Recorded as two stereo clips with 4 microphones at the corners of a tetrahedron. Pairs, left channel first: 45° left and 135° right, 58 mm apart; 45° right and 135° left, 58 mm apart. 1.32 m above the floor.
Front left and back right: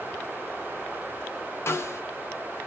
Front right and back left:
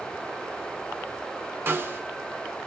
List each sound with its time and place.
1.7 s a snare drum: 85° left, 0.7 m